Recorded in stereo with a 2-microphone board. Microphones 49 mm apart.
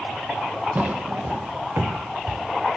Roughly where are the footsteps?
Right.